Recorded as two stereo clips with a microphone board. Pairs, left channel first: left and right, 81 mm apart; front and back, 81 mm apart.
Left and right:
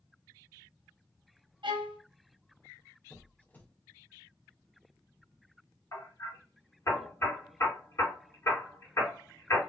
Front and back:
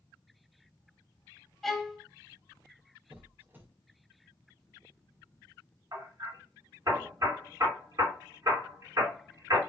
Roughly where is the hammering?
Behind left.